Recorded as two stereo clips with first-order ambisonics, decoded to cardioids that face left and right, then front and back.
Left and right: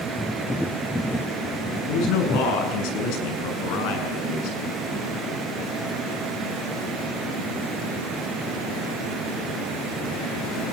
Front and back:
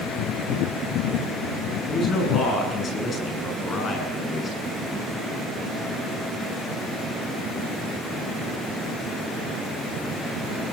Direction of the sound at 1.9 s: 65° left.